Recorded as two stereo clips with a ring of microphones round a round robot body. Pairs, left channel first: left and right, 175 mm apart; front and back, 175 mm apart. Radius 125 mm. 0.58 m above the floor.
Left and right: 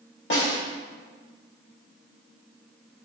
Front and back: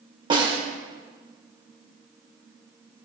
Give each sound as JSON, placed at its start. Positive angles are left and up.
{"t": 0.3, "sound": "a snare drum", "azimuth_deg": 120, "distance_m": 1.2}